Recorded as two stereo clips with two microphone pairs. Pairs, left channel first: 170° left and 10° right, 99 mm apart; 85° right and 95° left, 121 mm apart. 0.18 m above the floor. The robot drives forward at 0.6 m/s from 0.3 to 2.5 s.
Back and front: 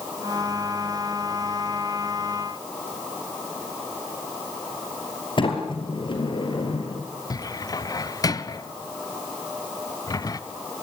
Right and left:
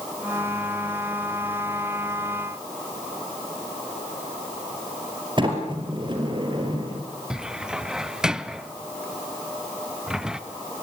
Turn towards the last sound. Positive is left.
turn(degrees=170)